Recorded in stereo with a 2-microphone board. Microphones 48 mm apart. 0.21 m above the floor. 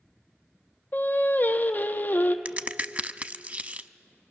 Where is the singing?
40° left (ahead or behind), 1.1 m.